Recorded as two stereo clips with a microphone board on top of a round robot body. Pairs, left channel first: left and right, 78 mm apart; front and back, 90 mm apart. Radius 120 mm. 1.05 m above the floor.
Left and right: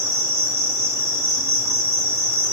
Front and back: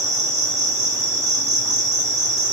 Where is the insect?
135° right, 2 m.